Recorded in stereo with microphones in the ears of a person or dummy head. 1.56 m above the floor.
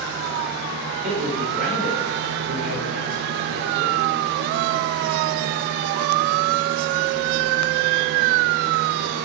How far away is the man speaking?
About 6 m.